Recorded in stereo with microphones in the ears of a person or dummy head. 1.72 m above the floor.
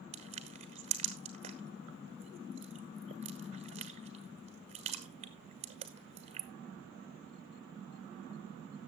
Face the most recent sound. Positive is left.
turn(degrees=-35)  # may be behind; listen again after turning